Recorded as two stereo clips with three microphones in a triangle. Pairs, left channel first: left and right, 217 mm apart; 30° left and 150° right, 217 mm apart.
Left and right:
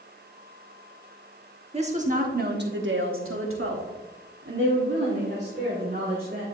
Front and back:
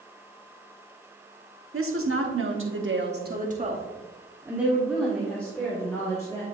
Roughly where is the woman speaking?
Behind right.